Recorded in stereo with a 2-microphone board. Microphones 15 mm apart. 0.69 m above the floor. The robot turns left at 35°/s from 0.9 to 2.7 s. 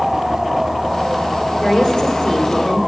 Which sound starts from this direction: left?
A woman speaking, at 1.6 s.